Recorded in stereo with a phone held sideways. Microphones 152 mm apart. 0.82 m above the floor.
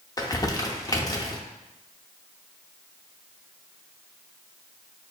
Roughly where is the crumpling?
Left.